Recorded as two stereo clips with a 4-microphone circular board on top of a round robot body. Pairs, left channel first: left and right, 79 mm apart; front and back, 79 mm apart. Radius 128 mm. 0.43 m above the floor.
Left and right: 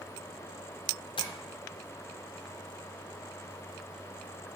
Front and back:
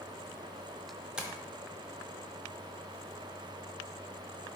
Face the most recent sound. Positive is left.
turn(degrees=100)